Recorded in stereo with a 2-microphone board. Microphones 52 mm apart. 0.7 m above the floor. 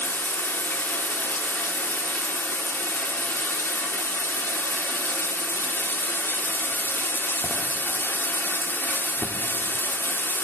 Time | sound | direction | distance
0.0 | running water | 45° left (ahead or behind) | 0.7 m